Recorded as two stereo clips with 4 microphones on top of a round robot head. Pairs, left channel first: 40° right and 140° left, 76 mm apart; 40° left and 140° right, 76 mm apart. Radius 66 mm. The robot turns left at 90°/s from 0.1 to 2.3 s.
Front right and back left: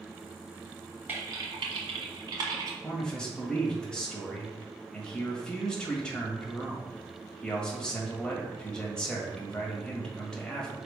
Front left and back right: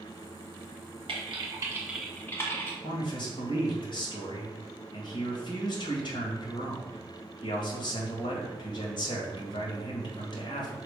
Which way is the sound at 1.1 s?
150° right.